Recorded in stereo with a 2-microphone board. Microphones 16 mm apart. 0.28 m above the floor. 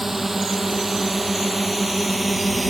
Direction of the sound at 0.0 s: 15° right (ahead or behind).